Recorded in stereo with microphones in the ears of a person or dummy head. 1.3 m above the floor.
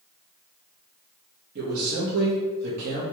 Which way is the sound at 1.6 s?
55° right (ahead or behind).